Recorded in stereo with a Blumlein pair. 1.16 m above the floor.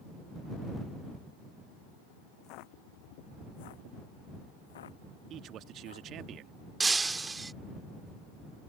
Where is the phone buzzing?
I don't hear a phone buzzing.